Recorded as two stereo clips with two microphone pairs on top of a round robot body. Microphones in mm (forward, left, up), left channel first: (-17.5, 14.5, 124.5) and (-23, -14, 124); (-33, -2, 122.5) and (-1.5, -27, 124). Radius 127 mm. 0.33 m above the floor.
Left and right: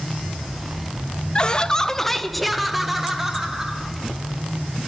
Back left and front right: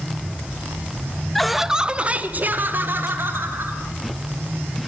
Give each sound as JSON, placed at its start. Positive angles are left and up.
{"t": 1.4, "sound": "laughter", "azimuth_deg": 70, "distance_m": 1.4}